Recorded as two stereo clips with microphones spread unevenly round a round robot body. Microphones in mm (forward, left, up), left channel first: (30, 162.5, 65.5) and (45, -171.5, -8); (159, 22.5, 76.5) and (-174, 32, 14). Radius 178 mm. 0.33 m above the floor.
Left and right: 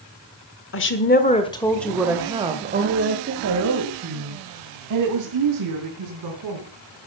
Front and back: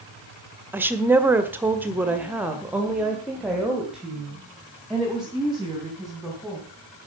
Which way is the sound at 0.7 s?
125° left.